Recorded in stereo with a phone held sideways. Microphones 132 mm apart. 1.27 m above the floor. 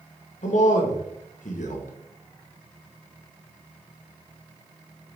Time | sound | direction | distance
0.4 | a man speaking | 75° left (ahead or behind) | 1.7 m